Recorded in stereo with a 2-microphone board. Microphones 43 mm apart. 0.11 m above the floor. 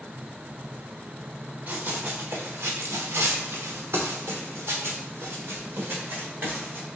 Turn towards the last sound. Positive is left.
turn(degrees=-45)  # may be behind; listen again after turning